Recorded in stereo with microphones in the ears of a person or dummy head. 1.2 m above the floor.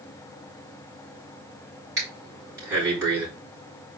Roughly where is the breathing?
Centre.